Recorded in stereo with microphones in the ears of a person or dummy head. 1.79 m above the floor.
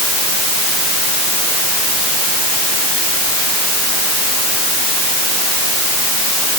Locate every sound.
Only background noise.